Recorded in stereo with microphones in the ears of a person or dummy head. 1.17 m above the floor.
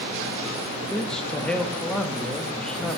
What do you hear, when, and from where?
0.9 s a man speaking: centre (ahead or behind), 1.4 m